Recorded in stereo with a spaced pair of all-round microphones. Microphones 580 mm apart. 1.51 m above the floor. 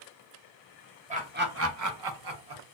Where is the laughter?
10° right (ahead or behind), 0.9 m; by 2.6 s 45° right (ahead or behind), 0.6 m.